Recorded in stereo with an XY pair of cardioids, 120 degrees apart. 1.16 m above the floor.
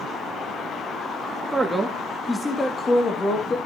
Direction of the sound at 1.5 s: 15° right.